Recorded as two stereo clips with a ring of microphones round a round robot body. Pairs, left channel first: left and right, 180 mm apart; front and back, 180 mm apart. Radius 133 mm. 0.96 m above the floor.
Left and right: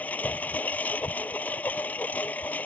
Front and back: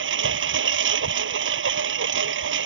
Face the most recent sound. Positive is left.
turn(degrees=175)